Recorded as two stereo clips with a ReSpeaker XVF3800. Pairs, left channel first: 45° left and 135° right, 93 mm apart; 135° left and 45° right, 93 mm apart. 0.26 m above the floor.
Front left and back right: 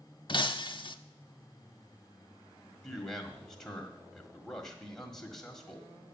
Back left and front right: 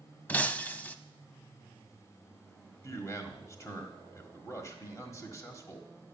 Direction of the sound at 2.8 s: 130° left.